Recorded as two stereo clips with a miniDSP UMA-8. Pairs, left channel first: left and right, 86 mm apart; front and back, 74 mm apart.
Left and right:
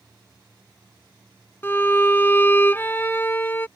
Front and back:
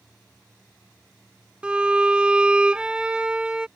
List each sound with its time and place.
1.6 s a violin: 120° left